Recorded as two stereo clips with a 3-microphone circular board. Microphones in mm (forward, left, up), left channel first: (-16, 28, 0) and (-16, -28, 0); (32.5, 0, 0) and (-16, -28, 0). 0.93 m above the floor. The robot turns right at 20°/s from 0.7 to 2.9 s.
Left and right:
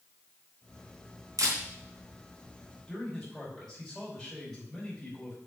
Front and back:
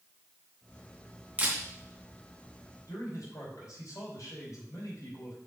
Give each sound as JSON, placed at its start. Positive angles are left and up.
{"t": 1.4, "sound": "a camera shutter", "azimuth_deg": -80, "distance_m": 3.5}
{"t": 2.9, "sound": "a man speaking", "azimuth_deg": 5, "distance_m": 5.0}